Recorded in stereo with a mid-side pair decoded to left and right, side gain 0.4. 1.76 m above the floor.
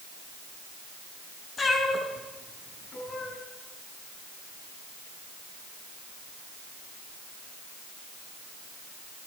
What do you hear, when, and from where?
1.6 s a cat meowing: 40° left, 7.5 m